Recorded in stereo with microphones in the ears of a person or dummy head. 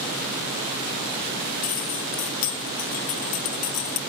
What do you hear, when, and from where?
1.6 s keys jangling: 50° left (ahead or behind), 2 m